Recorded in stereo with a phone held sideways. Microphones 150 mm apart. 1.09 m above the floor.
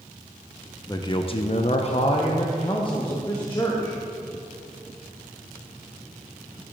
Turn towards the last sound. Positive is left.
turn(degrees=25)  # may be behind; listen again after turning